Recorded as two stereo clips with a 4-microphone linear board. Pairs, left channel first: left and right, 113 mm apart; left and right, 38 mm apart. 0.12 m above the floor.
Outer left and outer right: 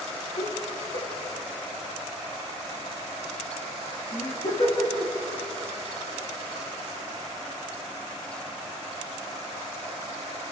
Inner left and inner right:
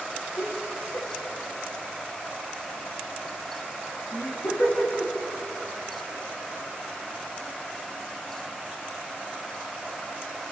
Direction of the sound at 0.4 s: 75° left (ahead or behind).